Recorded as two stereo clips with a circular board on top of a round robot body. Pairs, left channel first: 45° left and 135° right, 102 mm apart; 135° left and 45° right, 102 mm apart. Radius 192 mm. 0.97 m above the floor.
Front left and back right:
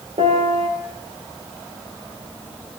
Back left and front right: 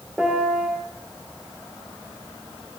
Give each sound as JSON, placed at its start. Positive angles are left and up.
{"t": 0.2, "sound": "a piano", "azimuth_deg": -125, "distance_m": 2.5}